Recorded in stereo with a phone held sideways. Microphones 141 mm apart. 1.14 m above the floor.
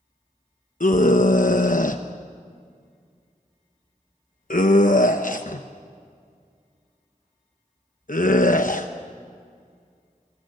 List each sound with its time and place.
0.8 s a scream: 65° left (ahead or behind), 1.0 m